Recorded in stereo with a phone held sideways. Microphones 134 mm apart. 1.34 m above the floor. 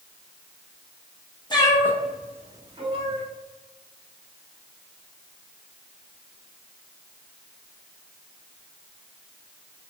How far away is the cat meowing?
About 0.6 m.